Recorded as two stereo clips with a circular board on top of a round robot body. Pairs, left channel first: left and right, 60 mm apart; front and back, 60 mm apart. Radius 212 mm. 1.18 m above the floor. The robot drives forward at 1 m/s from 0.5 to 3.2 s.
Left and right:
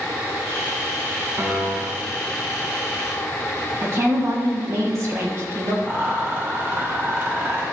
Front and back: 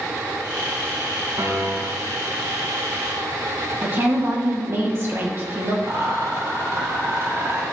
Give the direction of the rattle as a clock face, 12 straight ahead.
5 o'clock.